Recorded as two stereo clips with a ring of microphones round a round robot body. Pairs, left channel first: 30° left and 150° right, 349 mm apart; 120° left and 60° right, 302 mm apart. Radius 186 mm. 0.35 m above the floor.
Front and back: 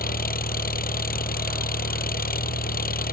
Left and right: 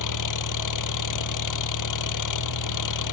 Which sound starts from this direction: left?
An engine running, at 0.0 s.